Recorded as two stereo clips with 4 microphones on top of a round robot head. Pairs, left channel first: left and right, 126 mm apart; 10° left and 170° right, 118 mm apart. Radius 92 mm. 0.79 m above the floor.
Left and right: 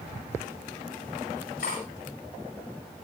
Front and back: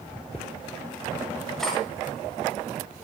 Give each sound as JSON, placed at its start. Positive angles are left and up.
{"t": 1.6, "sound": "cutlery clinking", "azimuth_deg": 95, "distance_m": 9.5}